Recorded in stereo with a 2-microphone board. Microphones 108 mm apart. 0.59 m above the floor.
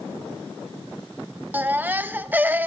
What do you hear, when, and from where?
1.5 s a baby crying: 15° right (ahead or behind), 0.6 m